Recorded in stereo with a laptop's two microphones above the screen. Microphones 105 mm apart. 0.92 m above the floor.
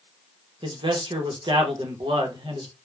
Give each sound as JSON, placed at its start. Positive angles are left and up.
{"t": 0.6, "sound": "a man speaking", "side_deg": -50, "distance_m": 0.8}